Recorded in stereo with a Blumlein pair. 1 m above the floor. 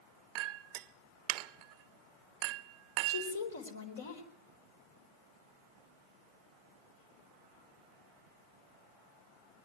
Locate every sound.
0.3 s a clink: 40° right, 0.6 m
3.1 s a woman speaking: 65° left, 4 m